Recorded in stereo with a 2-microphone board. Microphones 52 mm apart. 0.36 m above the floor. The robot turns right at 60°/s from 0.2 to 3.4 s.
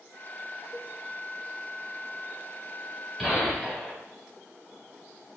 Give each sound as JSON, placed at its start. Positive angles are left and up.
{"t": 0.7, "sound": "a cowbell", "side_deg": 25, "distance_m": 0.6}
{"t": 3.2, "sound": "a gunshot", "side_deg": -5, "distance_m": 2.5}